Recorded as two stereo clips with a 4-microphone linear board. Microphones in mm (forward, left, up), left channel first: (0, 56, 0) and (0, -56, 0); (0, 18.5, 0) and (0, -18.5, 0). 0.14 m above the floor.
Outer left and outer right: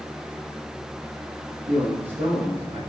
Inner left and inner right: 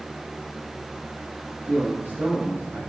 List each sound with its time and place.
1.7 s a man speaking: 70° right (ahead or behind), 4.5 m